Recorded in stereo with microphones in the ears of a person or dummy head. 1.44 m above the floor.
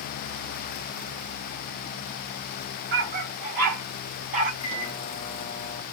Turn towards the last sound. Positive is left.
turn(degrees=40)  # may be behind; listen again after turning